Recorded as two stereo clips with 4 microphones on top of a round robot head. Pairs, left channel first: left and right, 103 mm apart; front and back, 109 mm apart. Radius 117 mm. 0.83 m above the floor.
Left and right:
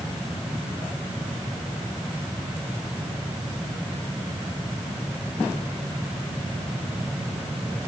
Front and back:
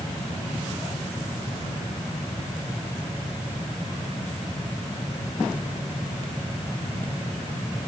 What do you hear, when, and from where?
Only background noise.